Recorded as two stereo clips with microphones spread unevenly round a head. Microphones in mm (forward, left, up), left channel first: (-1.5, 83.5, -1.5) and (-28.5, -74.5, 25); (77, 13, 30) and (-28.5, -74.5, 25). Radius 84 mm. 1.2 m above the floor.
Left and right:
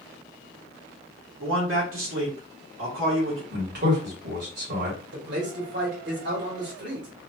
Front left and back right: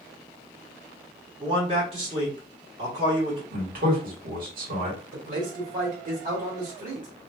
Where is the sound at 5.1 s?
120° right, 2 m.